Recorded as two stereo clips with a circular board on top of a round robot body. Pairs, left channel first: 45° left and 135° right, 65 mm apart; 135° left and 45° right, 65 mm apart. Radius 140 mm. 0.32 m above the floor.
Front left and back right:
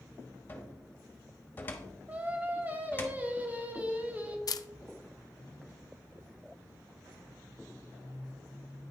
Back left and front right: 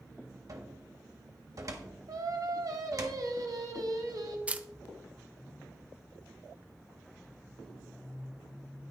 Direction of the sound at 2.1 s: 70° right.